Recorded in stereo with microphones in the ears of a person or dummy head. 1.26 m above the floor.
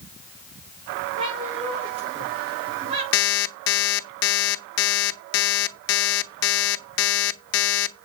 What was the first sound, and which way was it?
A cat meowing, 25° right (ahead or behind).